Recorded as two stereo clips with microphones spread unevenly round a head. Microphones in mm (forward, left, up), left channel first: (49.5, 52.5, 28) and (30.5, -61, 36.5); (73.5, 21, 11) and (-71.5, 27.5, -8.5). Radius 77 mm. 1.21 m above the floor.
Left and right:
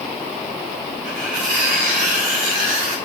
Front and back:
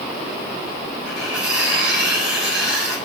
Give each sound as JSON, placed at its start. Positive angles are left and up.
{"t": 1.1, "sound": "cutlery clinking", "azimuth_deg": -95, "distance_m": 2.0}